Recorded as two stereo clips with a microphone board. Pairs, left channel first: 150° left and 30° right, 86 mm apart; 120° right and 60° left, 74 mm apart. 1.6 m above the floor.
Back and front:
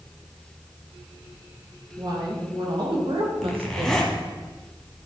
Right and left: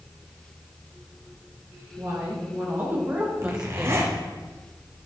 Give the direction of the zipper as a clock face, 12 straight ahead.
10 o'clock.